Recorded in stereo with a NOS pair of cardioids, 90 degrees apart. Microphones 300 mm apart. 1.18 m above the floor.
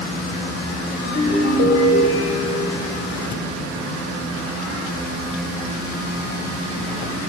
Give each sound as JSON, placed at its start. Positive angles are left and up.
{"t": 1.0, "sound": "a ringtone", "azimuth_deg": 55, "distance_m": 2.5}